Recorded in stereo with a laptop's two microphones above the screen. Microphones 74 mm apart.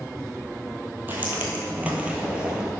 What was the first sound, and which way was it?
Footsteps, 25° right (ahead or behind).